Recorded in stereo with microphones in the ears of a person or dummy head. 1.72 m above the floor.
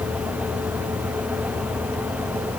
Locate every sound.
Only background noise.